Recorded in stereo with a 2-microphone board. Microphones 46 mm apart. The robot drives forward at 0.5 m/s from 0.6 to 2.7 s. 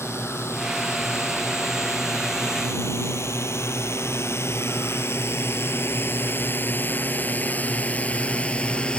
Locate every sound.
0.0 s a drone: 70° left (ahead or behind); by 9.0 s 20° left (ahead or behind)